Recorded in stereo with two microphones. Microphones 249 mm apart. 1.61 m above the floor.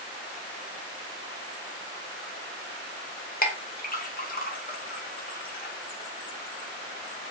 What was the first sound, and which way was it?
A clink, 35° left (ahead or behind).